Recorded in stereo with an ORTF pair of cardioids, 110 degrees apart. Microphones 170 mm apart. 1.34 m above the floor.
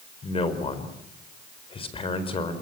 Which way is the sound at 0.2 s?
30° left.